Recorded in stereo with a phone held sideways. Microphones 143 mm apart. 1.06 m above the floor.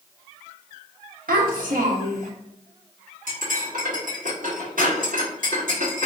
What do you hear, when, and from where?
1.3 s a child speaking: 85° right, 1.1 m
3.3 s cutlery clinking: 75° right (ahead or behind), 1.6 m